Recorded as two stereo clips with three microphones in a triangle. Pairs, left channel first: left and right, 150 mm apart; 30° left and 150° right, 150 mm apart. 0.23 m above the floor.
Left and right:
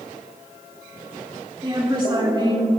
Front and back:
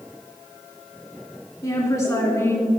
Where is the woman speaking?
35° right, 3.5 m; by 2.7 s 40° right, 2.5 m.